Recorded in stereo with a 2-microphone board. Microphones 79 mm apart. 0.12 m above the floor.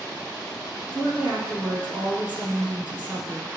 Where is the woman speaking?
15° right (ahead or behind), 3.5 m.